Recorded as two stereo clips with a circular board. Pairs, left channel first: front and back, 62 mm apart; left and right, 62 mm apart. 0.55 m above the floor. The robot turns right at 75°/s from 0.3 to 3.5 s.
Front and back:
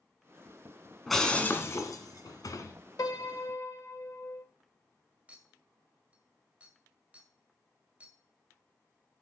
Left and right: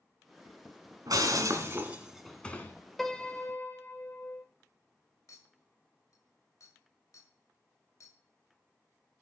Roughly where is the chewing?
I don't hear chewing.